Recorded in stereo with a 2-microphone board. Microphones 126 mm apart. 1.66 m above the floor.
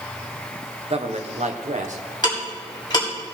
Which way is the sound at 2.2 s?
35° left (ahead or behind).